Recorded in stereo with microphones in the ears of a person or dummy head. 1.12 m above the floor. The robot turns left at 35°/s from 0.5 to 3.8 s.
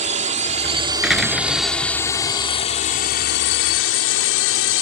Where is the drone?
40° right (ahead or behind); by 4.8 s 70° left (ahead or behind).